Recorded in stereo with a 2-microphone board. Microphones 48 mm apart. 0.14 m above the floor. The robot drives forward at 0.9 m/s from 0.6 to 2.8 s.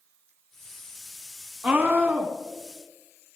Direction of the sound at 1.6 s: 30° right (ahead or behind).